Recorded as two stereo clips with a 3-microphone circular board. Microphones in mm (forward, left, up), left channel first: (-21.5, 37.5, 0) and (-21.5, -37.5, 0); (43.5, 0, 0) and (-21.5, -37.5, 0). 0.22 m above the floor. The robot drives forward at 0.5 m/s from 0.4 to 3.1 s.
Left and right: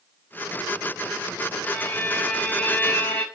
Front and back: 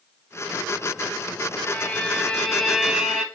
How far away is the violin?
About 0.8 m.